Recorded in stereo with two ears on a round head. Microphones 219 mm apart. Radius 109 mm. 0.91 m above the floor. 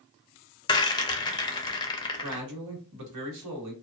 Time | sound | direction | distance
0.7 | a rattle | 15° left (ahead or behind) | 0.5 m
2.2 | a man speaking | 75° right (ahead or behind) | 1.3 m